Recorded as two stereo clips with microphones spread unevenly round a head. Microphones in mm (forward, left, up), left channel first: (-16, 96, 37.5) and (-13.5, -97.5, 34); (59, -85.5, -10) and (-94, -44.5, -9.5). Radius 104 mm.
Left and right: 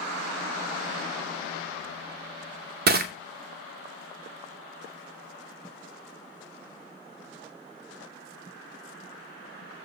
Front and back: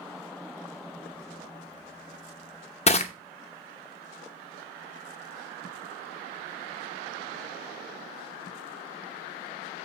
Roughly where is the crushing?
Ahead right.